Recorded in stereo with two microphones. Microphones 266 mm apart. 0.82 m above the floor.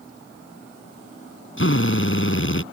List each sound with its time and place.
1.6 s a drill: 50° left (ahead or behind)